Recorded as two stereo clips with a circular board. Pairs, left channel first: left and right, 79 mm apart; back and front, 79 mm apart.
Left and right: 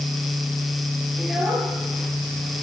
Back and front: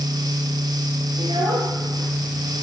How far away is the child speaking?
About 8.5 m.